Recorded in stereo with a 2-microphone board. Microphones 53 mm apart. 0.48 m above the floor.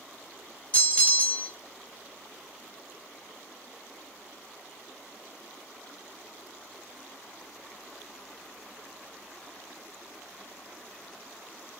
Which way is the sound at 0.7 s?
25° left (ahead or behind).